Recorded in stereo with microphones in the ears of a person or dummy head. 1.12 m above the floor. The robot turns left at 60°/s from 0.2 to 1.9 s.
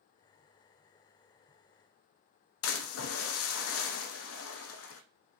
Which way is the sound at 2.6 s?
85° left.